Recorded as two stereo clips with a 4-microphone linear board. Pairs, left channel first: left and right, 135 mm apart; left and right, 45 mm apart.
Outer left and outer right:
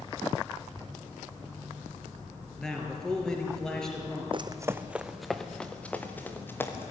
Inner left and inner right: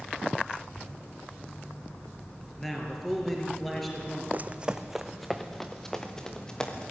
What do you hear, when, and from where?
2.6 s a man speaking: 5° left (ahead or behind), 5 m
4.3 s running footsteps: 40° right (ahead or behind), 0.8 m; by 6.9 s 15° left (ahead or behind), 3 m